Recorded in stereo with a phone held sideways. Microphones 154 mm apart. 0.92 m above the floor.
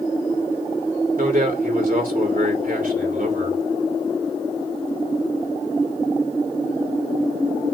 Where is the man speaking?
60° right (ahead or behind), 2.5 m.